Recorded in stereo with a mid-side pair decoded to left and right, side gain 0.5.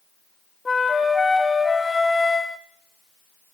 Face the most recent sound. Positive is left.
turn(degrees=20)